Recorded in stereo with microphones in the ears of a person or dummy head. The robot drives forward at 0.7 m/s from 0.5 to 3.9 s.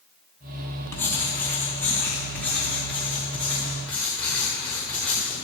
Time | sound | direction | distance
0.9 | writing | 15° left (ahead or behind) | 2.5 m